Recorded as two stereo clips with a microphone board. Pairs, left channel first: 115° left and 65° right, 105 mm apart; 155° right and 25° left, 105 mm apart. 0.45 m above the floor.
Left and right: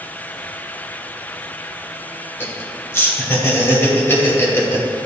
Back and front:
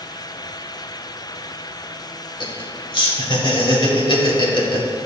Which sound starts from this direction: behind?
Laughter, at 2.4 s.